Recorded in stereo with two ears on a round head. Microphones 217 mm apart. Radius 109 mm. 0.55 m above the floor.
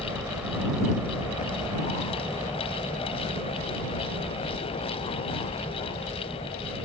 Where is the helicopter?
5° right (ahead or behind).